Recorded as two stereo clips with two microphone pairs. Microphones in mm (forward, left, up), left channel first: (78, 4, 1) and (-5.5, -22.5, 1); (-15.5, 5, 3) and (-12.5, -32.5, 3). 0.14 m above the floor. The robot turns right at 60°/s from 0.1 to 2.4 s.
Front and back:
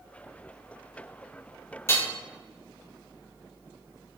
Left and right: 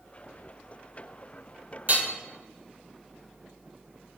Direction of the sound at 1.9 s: 40° right.